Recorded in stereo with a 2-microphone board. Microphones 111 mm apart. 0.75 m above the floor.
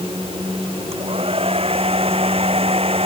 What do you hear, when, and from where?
0.9 s a hair dryer: 60° right (ahead or behind)